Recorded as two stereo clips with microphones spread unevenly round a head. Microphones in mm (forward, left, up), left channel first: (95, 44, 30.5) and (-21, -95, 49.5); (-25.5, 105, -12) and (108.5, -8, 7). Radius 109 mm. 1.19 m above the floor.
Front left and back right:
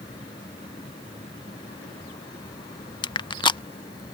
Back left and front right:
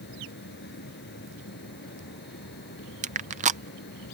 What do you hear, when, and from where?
0.0 s a fan: 120° left
3.0 s crushing: straight ahead